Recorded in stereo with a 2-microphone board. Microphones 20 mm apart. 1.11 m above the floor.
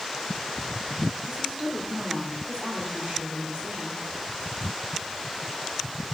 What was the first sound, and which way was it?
A woman speaking, 75° right (ahead or behind).